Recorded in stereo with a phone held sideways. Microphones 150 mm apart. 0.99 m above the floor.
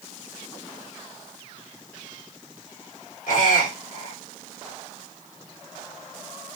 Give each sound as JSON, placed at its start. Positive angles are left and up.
{"t": 3.3, "sound": "a squeak", "side_deg": 75, "distance_m": 1.8}